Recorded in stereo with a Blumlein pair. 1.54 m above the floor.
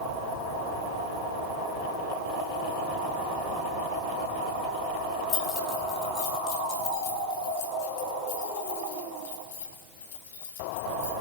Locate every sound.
5.3 s keys jangling: 30° left, 5 m; by 11.1 s 60° left, 8 m